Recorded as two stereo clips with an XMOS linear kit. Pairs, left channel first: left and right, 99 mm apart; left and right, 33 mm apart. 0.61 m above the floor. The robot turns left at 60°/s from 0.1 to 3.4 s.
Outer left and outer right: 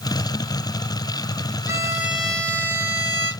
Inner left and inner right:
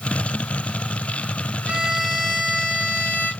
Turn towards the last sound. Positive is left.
turn(degrees=115)